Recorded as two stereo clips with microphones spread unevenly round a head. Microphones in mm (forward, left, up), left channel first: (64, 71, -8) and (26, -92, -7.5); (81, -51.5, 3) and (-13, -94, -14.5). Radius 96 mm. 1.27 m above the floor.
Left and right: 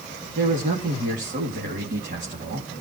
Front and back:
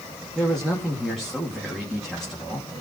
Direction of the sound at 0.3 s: 65° right.